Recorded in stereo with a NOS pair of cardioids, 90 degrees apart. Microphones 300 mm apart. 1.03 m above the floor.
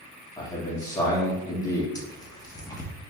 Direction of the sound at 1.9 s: 10° left.